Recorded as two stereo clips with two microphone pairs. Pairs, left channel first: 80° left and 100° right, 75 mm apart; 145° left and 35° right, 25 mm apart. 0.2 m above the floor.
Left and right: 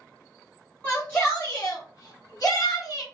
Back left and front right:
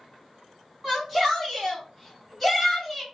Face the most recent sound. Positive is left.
turn(degrees=60)